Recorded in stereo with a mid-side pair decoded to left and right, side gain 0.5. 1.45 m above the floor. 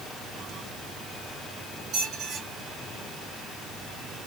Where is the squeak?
60° right, 1.6 m.